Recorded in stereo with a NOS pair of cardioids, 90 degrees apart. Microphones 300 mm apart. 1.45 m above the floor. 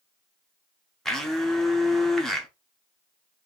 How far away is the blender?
About 1.1 m.